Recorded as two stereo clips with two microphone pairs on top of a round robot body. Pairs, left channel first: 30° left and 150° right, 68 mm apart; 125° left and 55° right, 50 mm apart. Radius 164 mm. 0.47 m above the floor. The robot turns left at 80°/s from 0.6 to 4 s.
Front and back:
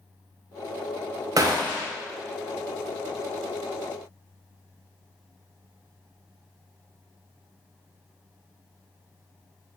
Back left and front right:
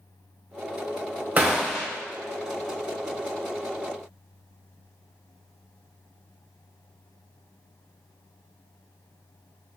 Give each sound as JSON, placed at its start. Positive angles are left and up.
{"t": 1.4, "sound": "a gunshot", "azimuth_deg": -115, "distance_m": 0.5}